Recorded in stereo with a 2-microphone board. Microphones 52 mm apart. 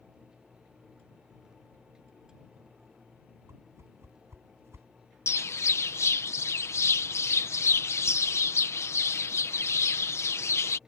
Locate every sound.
3.5 s a whoosh: 55° right (ahead or behind)
5.3 s a bird: 60° left (ahead or behind)